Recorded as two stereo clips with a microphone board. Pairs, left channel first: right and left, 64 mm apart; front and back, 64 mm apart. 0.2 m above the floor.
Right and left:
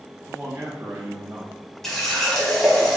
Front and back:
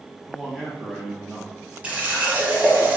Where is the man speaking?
90° left, 1.1 m.